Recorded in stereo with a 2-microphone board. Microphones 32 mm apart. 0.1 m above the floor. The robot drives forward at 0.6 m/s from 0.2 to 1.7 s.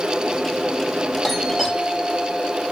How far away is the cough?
I don't hear a cough.